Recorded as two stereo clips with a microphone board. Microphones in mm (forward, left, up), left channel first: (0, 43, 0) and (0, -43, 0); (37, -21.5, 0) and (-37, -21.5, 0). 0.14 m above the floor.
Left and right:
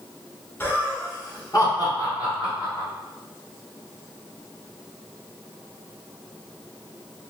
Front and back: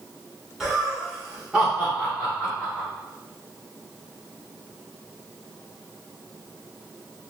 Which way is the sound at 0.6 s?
105° left.